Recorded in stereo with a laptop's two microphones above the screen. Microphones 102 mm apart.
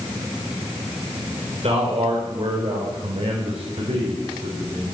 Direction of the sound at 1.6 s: 80° right.